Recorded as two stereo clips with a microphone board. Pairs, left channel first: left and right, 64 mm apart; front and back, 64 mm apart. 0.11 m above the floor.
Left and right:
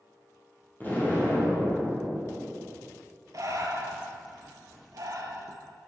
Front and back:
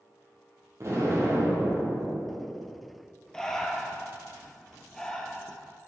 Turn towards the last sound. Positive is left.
turn(degrees=-80)